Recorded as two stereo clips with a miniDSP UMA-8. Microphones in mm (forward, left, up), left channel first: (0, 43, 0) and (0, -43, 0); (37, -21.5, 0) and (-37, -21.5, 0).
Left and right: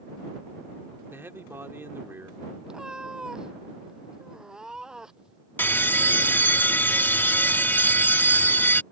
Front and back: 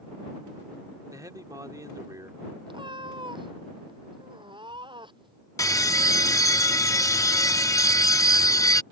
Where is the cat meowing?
175° right.